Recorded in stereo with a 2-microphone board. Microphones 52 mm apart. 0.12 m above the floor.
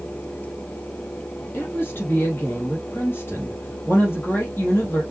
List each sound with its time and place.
1.5 s a woman speaking: 40° left (ahead or behind), 3.5 m